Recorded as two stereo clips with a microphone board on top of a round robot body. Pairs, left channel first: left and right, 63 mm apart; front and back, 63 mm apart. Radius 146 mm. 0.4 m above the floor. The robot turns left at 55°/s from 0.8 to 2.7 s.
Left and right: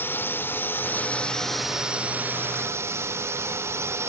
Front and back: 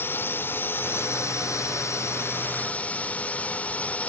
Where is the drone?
45° left; by 4.1 s 60° right.